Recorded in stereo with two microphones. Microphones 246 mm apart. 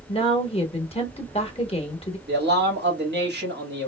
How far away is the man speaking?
About 2 m.